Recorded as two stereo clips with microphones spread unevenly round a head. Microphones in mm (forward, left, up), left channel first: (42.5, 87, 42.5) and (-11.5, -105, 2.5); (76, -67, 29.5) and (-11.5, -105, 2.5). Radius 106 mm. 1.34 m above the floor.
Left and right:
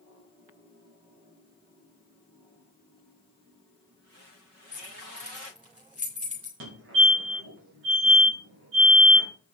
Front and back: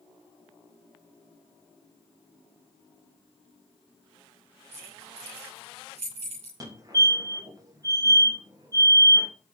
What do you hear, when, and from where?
4.7 s keys jangling: 170° left, 3 m
6.6 s a fire alarm: 110° right, 3.5 m